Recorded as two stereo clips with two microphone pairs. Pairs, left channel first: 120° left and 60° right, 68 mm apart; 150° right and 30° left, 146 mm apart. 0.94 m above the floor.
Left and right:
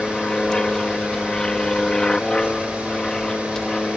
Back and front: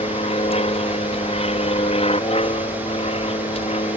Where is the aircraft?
160° right.